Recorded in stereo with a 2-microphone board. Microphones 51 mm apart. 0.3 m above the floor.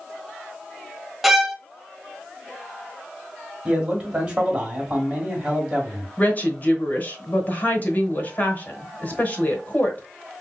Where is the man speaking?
25° right (ahead or behind), 1.9 m.